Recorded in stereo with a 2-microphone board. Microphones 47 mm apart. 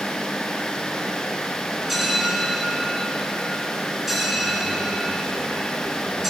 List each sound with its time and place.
1.9 s a bell: 5° right (ahead or behind), 1.1 m